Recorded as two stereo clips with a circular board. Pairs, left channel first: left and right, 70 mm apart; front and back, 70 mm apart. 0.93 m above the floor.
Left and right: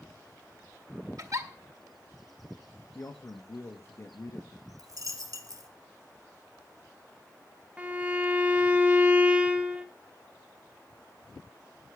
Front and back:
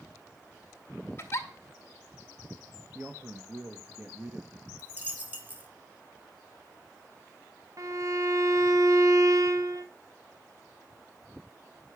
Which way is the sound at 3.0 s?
125° left.